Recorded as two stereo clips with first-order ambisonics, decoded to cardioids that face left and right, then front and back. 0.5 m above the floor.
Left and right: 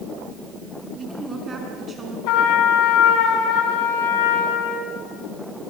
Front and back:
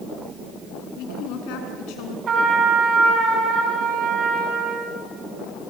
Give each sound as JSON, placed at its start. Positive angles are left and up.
{"t": 0.9, "sound": "a woman speaking", "azimuth_deg": -20, "distance_m": 5.5}
{"t": 2.3, "sound": "a trumpet", "azimuth_deg": 115, "distance_m": 4.5}